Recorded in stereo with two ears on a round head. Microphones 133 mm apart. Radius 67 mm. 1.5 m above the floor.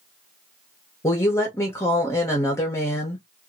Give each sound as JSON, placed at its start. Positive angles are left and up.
{"t": 1.0, "sound": "a woman speaking", "side_deg": 20, "distance_m": 0.7}